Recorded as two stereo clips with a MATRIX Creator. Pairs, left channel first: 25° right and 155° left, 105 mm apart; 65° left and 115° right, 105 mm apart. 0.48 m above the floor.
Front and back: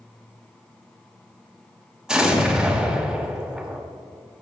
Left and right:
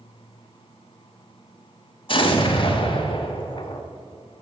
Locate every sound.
2.1 s an explosion: 75° left, 1.1 m